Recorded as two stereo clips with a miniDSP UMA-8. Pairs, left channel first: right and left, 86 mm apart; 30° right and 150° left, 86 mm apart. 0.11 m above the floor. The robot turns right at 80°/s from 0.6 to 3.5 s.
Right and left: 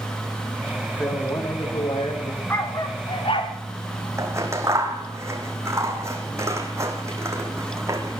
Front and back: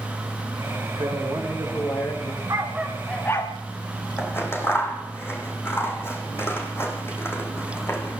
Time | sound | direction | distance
1.0 | a man speaking | 170° left | 9.5 m
2.5 | a dog barking | 155° right | 4 m
4.2 | scissors | 35° left | 5.5 m